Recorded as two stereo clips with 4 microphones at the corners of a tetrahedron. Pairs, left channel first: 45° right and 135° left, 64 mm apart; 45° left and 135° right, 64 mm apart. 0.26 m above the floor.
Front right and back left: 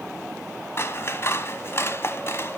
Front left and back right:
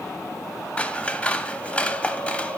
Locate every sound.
0.8 s scissors: 20° right, 0.8 m